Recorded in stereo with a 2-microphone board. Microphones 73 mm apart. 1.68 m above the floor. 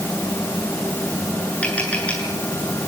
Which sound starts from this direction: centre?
Tapping, at 1.6 s.